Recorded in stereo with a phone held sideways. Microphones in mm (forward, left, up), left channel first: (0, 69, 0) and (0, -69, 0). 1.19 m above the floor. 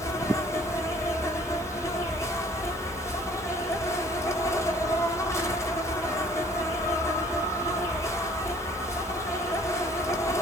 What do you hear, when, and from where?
0.0 s an insect: 20° left (ahead or behind), 0.9 m